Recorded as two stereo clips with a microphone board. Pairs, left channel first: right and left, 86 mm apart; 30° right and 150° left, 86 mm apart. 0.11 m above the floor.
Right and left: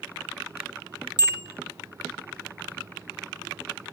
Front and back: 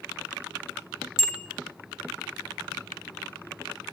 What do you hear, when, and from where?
1.2 s a bicycle bell: 65° left, 2.5 m